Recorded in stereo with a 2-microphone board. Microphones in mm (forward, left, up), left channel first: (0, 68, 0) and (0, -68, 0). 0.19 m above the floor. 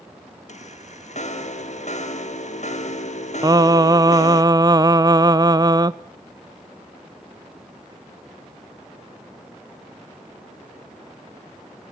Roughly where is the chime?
Left.